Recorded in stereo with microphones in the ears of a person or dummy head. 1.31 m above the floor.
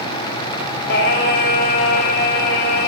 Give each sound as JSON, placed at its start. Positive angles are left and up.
{"t": 0.9, "sound": "singing", "side_deg": 65, "distance_m": 1.8}